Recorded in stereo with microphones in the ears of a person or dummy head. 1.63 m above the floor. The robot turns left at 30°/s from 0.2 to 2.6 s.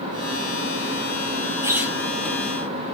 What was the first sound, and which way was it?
A squeak, 10° right (ahead or behind).